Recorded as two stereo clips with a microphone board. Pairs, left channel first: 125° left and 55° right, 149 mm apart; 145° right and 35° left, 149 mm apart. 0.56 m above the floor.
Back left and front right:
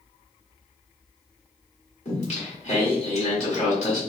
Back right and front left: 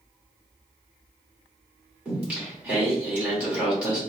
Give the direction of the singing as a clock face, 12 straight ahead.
8 o'clock.